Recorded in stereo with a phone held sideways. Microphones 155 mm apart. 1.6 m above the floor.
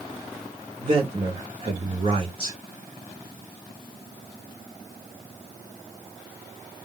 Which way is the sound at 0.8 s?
35° right (ahead or behind).